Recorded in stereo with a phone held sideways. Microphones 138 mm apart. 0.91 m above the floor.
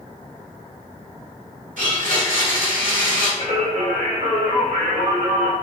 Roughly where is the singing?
Right.